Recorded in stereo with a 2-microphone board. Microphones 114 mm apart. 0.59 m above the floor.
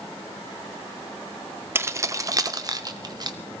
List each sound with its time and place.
1.8 s keys jangling: 20° right (ahead or behind), 0.5 m; by 3.4 s 40° right (ahead or behind), 1.3 m